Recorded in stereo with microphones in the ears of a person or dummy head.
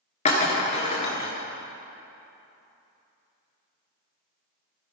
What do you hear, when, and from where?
0.2 s breaking glass: 35° left (ahead or behind), 1.7 m